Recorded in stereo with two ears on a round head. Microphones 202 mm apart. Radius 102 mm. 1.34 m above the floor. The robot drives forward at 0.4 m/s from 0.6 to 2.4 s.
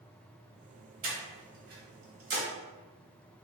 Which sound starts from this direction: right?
Breathing, at 1.0 s.